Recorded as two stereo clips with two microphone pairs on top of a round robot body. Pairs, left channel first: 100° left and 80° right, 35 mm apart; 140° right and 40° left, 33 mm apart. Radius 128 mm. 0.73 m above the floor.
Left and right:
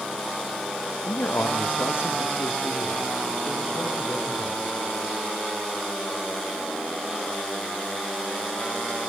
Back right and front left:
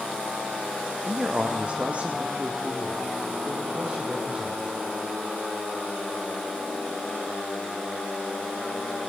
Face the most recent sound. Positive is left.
turn(degrees=90)